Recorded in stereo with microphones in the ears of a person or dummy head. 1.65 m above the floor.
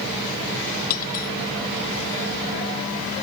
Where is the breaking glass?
50° left (ahead or behind).